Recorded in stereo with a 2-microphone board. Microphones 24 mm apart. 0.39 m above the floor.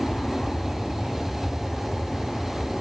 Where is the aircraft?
30° left (ahead or behind).